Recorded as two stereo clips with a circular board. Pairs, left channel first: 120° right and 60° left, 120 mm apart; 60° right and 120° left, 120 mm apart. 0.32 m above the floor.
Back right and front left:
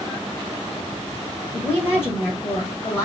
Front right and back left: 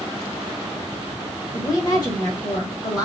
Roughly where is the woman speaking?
Right.